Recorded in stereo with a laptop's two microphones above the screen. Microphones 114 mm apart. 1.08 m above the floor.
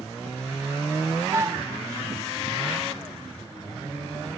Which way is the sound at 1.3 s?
25° right (ahead or behind).